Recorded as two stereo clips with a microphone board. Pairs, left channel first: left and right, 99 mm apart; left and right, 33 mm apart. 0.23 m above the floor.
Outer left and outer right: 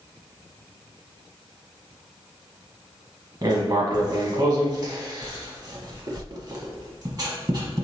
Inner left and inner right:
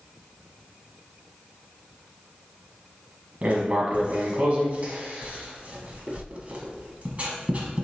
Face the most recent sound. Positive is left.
turn(degrees=-40)  # may be behind; listen again after turning